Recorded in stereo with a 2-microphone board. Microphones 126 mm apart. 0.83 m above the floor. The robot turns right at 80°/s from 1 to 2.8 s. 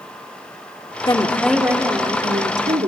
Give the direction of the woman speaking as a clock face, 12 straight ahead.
7 o'clock.